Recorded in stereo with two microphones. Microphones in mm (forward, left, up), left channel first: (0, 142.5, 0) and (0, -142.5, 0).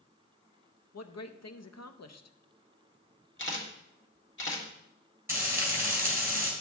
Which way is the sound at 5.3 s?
10° right (ahead or behind).